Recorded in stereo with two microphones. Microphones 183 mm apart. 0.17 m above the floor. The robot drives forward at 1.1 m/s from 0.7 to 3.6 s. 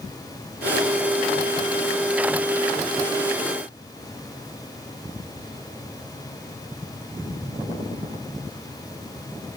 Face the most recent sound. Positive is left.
No sound to turn to.